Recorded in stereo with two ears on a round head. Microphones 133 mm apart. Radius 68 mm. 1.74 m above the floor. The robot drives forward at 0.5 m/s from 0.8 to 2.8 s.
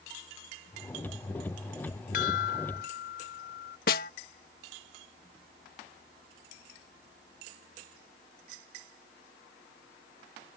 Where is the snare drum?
65° left (ahead or behind).